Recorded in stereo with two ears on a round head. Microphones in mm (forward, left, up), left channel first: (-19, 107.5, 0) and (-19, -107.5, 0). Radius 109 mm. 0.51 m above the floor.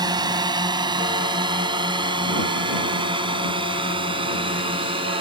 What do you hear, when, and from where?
0.0 s a drone: 20° right (ahead or behind); by 5.2 s 25° right (ahead or behind)